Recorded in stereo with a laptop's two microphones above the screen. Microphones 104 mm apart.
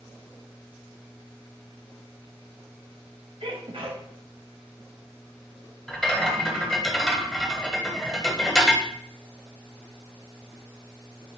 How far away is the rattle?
About 1.7 m.